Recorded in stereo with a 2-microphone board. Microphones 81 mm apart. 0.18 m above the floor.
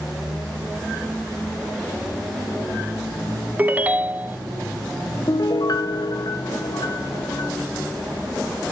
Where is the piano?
55° left (ahead or behind), 0.8 m.